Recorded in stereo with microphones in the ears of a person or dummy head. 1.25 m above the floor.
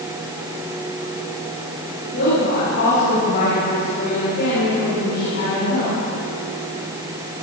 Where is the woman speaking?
65° left (ahead or behind), 7 m; by 6.0 s 45° left (ahead or behind), 3.5 m.